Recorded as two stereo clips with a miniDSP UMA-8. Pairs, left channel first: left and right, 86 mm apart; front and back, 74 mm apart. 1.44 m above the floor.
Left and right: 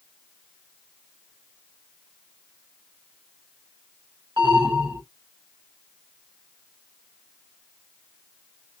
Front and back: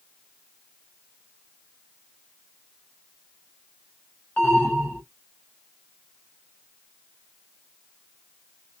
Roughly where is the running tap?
I don't hear a running tap.